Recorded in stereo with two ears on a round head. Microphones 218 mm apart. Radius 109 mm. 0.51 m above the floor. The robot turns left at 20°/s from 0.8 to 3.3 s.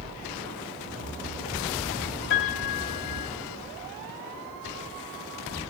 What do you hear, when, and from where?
2.3 s a piano: 55° left (ahead or behind), 2 m; by 3.3 s 75° left (ahead or behind), 2 m